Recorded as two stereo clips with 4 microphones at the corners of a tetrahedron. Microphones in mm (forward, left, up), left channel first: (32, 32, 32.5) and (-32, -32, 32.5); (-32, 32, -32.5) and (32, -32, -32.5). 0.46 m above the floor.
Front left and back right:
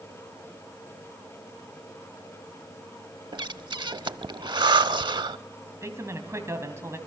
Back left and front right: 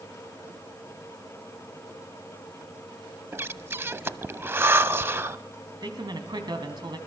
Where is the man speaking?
80° right, 3 m.